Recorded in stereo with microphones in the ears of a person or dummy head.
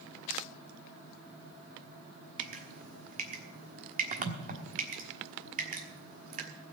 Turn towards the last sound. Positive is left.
turn(degrees=-45)  # may be behind; listen again after turning